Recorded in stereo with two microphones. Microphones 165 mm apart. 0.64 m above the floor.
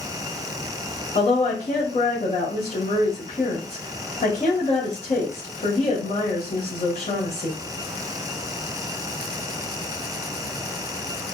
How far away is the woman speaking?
About 1.8 m.